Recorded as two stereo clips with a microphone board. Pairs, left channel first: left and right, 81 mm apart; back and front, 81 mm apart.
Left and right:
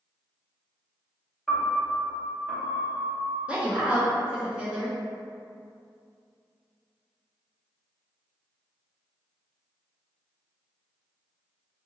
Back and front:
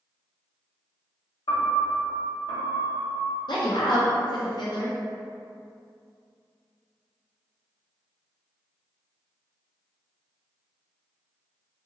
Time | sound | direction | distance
1.5 | a piano | 175° left | 0.8 m
3.5 | a woman speaking | 165° right | 0.6 m